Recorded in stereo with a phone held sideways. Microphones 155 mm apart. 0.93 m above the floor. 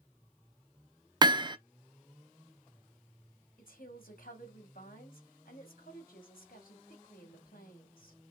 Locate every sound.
1.2 s hammering: 30° right (ahead or behind), 0.5 m
3.6 s a woman speaking: 70° left (ahead or behind), 2.5 m